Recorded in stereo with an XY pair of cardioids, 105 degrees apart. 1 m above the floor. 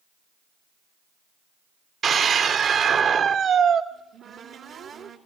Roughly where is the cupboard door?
Ahead right.